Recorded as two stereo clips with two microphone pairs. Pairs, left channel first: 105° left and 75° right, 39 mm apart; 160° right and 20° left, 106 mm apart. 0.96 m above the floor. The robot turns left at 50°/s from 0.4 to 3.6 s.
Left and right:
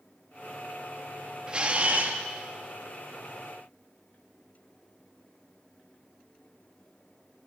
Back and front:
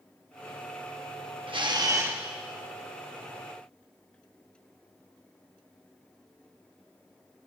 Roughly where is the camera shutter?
Ahead.